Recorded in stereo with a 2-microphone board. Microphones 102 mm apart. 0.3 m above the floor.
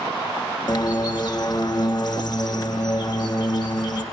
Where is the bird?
45° left (ahead or behind), 1.9 m.